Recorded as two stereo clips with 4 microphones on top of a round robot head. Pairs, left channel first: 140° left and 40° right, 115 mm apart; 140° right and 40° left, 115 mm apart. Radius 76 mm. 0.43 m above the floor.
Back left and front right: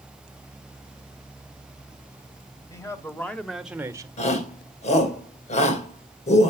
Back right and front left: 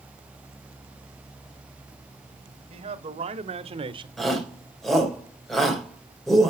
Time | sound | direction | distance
2.7 | a man speaking | 75° left | 2 m
4.2 | a shout | 135° left | 3 m